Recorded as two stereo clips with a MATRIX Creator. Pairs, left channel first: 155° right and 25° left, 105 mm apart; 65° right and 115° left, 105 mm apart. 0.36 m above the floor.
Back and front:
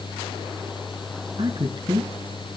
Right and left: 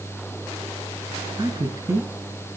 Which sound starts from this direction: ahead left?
A man speaking, at 1.4 s.